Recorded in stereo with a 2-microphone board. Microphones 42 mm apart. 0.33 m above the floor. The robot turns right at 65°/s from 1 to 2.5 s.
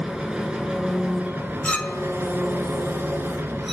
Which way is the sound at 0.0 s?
160° right.